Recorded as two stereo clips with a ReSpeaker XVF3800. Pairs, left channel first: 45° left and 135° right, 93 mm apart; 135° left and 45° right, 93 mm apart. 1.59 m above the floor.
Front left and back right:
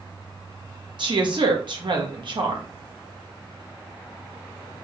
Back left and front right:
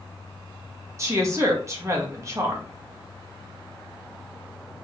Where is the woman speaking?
105° right, 1.5 m.